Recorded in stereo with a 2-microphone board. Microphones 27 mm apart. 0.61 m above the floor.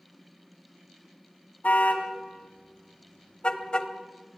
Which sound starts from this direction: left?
A car horn, at 1.6 s.